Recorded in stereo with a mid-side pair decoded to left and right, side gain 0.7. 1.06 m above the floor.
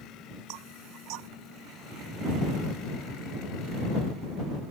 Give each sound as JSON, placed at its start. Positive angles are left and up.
{"t": 0.5, "sound": "knocking", "azimuth_deg": -70}